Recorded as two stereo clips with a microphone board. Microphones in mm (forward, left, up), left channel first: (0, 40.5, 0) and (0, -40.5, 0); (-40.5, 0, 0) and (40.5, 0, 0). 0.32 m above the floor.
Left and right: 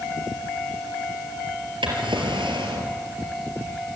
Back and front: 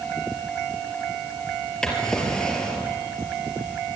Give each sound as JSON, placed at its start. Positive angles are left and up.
{"t": 1.8, "sound": "a drawer", "azimuth_deg": -100, "distance_m": 4.0}